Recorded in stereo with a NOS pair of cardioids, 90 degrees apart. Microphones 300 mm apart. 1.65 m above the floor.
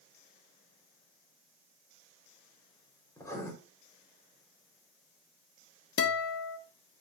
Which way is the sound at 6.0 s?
50° left.